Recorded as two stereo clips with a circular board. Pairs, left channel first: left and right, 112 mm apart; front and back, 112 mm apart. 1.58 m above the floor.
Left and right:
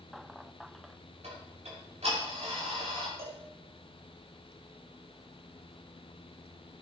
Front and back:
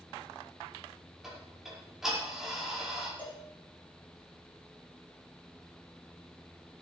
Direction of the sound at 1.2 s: 95° right.